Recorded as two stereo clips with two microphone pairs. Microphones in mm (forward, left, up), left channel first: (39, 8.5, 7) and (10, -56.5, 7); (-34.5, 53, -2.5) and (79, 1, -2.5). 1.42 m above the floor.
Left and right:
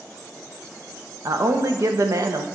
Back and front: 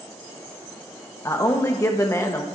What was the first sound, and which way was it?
A man speaking, 140° right.